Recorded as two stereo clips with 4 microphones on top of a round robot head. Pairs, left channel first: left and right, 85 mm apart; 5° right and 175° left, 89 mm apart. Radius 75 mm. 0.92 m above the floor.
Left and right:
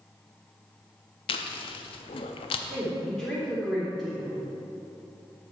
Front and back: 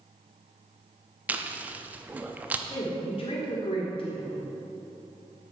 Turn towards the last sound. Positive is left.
turn(degrees=5)